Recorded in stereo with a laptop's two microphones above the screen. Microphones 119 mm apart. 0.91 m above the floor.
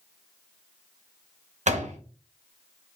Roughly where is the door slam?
Right.